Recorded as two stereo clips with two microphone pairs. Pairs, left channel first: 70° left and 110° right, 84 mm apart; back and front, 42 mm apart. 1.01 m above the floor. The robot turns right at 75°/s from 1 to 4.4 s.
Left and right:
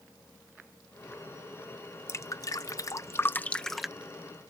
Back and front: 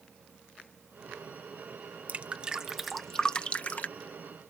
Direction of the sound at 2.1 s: 35° left.